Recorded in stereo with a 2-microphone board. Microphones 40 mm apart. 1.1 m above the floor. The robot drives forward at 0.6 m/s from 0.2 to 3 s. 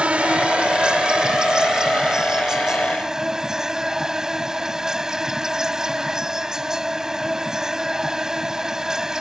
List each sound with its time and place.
0.0 s an insect: 30° right (ahead or behind); by 9.2 s 10° right (ahead or behind)